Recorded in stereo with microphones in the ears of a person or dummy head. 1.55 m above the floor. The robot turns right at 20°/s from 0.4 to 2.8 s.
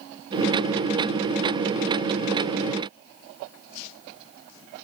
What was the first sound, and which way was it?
Only background noise.